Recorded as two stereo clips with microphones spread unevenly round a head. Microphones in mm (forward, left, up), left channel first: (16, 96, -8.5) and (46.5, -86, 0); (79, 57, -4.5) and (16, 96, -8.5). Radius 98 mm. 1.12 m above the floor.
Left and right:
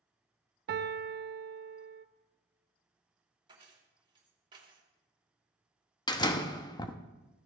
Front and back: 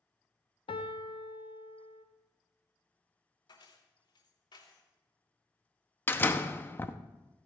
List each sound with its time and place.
0.7 s a piano: 45° right, 0.9 m
3.5 s keys jangling: 15° right, 3 m
6.1 s a door slam: 30° left, 1.1 m